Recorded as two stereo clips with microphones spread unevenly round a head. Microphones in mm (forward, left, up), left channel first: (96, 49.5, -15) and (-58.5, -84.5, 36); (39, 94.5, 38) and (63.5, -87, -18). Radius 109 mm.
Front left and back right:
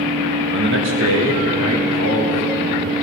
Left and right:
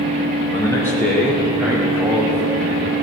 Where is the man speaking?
170° left, 0.8 m; by 2.9 s 155° right, 3.5 m.